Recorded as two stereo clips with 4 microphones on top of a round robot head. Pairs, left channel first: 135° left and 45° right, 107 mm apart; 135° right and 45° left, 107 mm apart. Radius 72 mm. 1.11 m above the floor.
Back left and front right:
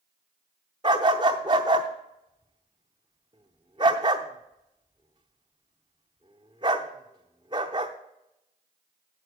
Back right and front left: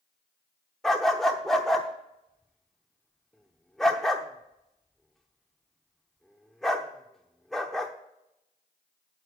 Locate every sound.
0.8 s a dog barking: 45° right, 0.7 m